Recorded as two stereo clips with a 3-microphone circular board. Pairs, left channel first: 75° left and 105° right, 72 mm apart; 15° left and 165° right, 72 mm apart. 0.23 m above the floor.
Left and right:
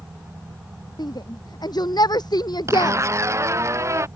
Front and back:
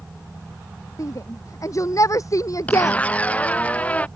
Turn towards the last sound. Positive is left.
turn(degrees=-55)